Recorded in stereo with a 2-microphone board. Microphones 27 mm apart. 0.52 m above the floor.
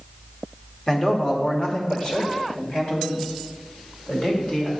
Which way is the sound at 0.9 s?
30° left (ahead or behind).